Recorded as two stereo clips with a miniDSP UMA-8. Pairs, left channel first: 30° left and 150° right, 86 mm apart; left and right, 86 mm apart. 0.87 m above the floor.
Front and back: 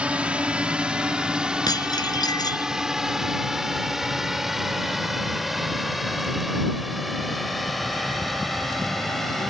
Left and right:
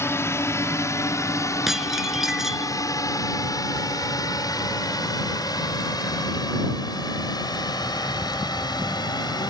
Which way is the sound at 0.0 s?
135° left.